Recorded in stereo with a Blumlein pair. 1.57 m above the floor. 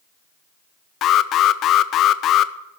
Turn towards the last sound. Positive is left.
turn(degrees=30)